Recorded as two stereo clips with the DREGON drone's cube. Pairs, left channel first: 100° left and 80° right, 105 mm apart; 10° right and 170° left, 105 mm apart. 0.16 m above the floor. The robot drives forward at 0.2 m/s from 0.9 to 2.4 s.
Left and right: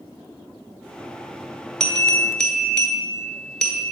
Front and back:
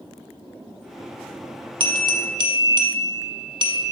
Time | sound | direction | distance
1.8 | a bell | straight behind | 0.8 m